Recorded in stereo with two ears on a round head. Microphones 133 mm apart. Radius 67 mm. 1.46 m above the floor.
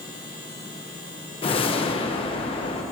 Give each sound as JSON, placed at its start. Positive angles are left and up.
{"t": 1.4, "sound": "a whoosh", "side_deg": 40, "distance_m": 1.3}